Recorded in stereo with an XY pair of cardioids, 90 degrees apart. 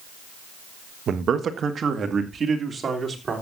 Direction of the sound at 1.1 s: 65° right.